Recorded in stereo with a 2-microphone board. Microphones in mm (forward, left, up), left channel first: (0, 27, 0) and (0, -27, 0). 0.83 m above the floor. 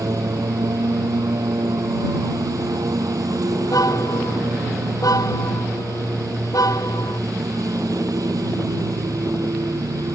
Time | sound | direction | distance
0.0 | a lawn mower | 85° right | ?
3.6 | a car horn | 85° left | ?